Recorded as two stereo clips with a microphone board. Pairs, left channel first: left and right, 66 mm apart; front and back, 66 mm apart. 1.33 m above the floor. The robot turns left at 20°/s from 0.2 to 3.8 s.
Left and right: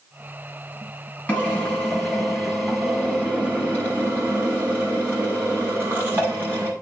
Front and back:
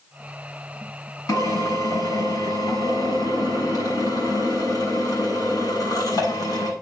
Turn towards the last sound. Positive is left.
turn(degrees=-30)